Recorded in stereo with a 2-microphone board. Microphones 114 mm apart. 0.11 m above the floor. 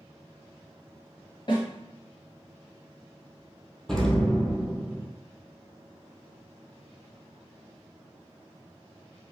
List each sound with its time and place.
1.5 s a snare drum: 45° left (ahead or behind), 1.8 m
3.9 s an explosion: 5° left (ahead or behind), 0.6 m